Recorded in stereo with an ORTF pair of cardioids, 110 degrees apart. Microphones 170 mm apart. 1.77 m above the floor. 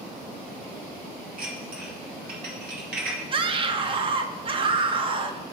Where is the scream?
30° right, 0.9 m.